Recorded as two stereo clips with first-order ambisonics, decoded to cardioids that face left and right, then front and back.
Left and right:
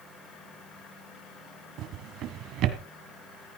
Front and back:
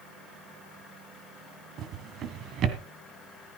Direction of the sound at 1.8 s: 130° right.